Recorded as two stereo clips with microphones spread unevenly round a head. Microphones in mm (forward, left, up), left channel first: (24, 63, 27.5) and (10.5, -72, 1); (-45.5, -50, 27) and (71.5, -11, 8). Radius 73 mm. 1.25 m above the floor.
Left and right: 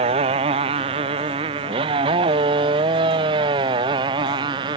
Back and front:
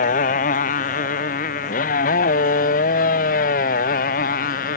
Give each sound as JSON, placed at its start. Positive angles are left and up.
{"t": 0.0, "sound": "a motorcycle", "azimuth_deg": -150}